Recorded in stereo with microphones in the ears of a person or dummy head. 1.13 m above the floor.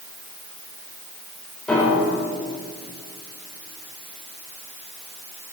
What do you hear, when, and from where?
1.7 s a piano: 10° left (ahead or behind), 5.5 m